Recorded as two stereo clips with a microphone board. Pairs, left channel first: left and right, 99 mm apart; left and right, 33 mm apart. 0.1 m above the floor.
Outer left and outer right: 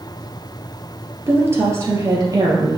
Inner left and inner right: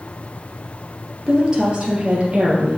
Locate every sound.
1.3 s a woman speaking: 20° right (ahead or behind), 2 m; by 2.8 s 40° right (ahead or behind), 3 m